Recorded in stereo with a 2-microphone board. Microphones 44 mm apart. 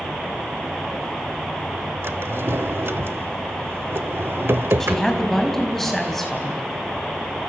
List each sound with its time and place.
2.0 s a drawer: 60° right (ahead or behind), 1.1 m
4.8 s a woman speaking: 5° left (ahead or behind), 4.5 m